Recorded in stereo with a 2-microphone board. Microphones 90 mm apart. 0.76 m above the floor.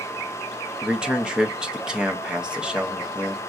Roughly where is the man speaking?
Centre.